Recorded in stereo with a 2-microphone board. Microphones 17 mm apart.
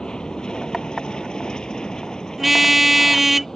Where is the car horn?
20° right (ahead or behind).